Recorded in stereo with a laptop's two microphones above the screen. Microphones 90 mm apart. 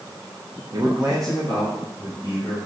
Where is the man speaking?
45° right (ahead or behind), 0.8 m; by 2.6 s 40° left (ahead or behind), 2.5 m.